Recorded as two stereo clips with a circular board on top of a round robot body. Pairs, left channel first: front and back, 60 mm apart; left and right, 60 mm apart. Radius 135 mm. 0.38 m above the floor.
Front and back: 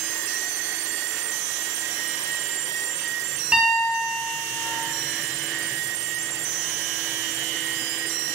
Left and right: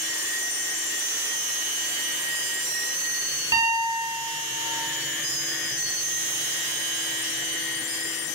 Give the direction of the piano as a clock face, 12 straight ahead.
3 o'clock.